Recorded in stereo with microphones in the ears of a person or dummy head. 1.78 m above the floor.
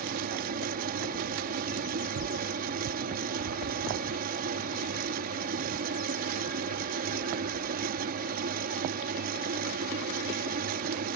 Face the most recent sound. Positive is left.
turn(degrees=-55)  # may be behind; listen again after turning